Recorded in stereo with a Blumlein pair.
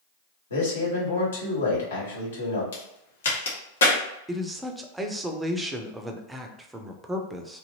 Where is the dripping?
I don't hear dripping.